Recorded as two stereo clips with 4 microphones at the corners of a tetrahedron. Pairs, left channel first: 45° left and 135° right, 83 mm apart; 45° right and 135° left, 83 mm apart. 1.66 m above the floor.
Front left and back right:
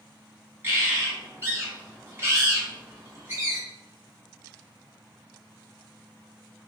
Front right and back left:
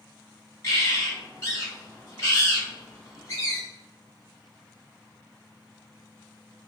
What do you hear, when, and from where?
0.6 s a bird: 80° right, 1.7 m